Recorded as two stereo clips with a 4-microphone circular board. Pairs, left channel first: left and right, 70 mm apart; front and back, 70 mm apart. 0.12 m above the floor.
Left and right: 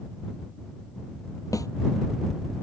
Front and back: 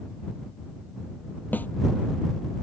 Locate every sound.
1.5 s a snare drum: 60° left